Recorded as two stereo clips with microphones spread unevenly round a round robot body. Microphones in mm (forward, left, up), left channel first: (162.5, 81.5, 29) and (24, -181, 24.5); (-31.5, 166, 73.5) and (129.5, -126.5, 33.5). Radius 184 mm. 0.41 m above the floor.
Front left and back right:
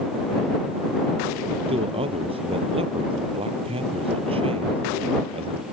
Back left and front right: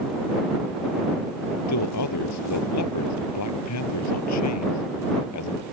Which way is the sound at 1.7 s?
165° left.